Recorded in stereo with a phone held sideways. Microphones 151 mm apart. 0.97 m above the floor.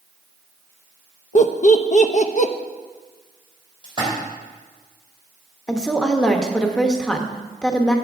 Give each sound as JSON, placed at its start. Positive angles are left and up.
{"t": 1.4, "sound": "laughter", "side_deg": 55, "distance_m": 0.6}
{"t": 3.8, "sound": "a splash", "side_deg": 30, "distance_m": 4.0}
{"t": 5.7, "sound": "a woman speaking", "side_deg": 5, "distance_m": 1.0}